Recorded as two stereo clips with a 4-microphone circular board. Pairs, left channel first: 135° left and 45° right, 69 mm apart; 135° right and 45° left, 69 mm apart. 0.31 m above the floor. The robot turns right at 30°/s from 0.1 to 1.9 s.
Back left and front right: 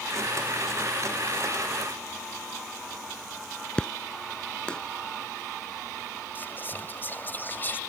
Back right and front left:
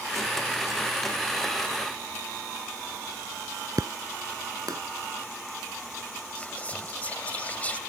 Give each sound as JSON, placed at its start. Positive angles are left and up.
{"t": 3.8, "sound": "an explosion", "azimuth_deg": 60}
{"t": 6.3, "sound": "whispering", "azimuth_deg": 170}